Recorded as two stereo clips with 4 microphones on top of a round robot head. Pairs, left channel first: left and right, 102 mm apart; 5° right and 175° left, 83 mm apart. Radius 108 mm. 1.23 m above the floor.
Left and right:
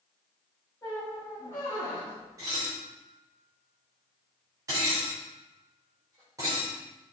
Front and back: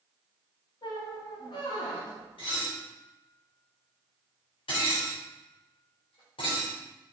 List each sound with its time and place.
0.8 s a squeak: 20° left, 2 m
2.4 s dishes clattering: 25° right, 3.5 m